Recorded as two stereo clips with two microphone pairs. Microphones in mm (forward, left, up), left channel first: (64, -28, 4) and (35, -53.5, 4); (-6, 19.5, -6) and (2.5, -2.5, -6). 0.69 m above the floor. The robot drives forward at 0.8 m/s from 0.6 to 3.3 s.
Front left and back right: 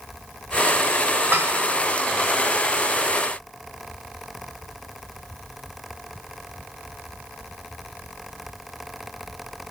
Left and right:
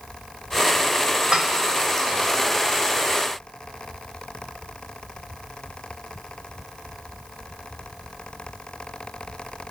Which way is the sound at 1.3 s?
125° right.